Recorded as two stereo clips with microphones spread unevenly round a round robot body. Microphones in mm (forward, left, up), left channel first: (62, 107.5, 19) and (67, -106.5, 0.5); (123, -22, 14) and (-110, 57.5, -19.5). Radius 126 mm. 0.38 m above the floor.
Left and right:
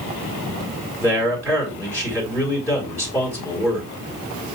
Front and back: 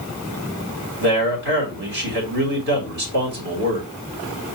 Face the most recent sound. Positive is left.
turn(degrees=175)